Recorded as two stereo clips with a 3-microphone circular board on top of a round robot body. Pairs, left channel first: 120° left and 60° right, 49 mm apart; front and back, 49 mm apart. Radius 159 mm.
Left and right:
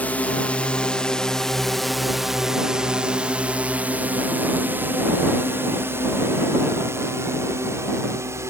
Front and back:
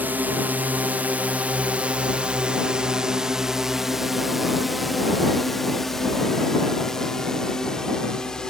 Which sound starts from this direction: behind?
A drone, at 0.0 s.